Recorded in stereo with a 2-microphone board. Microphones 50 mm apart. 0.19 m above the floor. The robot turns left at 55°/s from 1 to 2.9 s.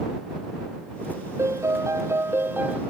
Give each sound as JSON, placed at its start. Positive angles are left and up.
{"t": 1.4, "sound": "a piano", "azimuth_deg": -70}